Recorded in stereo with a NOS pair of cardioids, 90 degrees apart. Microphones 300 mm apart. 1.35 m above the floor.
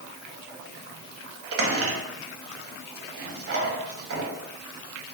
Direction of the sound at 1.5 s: 45° right.